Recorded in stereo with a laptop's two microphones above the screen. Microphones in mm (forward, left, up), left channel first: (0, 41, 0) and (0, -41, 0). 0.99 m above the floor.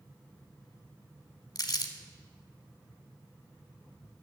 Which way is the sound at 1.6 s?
55° left (ahead or behind).